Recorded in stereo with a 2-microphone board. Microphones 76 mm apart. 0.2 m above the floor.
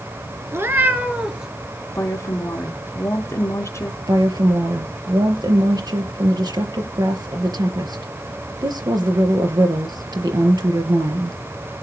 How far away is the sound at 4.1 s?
About 4 m.